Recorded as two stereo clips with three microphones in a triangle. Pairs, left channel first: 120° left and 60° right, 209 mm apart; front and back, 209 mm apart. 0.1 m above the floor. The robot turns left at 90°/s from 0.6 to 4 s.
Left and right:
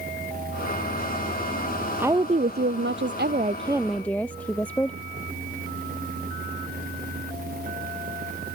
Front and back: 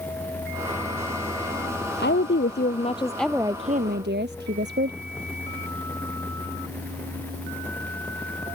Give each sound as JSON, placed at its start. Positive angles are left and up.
{"t": 2.0, "sound": "a woman speaking", "azimuth_deg": 25}